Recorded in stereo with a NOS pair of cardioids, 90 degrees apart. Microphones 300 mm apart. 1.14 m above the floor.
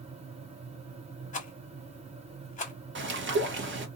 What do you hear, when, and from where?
0.0 s a fan: 20° right, 0.9 m
1.3 s a rattle: 25° left, 1.2 m
3.0 s a bird: 40° right, 1.2 m